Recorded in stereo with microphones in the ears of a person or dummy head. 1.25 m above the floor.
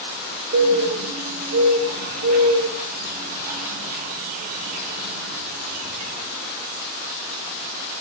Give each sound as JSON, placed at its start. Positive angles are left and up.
{"t": 0.5, "sound": "a bird", "side_deg": -50, "distance_m": 1.2}